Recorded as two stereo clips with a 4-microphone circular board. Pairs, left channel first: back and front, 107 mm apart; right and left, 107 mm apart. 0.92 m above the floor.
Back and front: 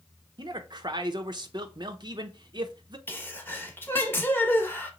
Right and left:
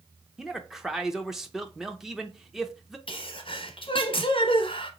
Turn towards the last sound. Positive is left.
turn(degrees=-110)